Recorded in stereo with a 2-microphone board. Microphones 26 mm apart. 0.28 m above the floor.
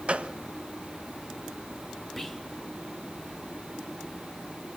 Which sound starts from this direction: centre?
Whispering, at 2.2 s.